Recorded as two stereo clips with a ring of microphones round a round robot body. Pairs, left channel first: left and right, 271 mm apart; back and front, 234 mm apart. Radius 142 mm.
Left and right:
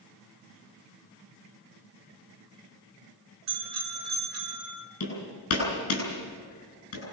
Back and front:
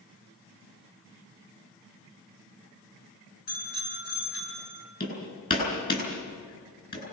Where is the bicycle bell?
120° right, 6.5 m; by 4.8 s 130° right, 6.5 m.